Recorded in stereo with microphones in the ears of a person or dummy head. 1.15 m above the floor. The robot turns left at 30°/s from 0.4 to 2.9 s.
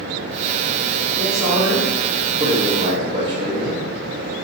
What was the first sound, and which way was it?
A man speaking, 5° left.